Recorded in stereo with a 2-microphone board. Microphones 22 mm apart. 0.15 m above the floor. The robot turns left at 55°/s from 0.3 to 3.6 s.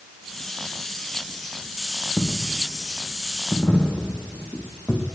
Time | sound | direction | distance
2.2 | a dropped coin | 25° left (ahead or behind) | 4.5 m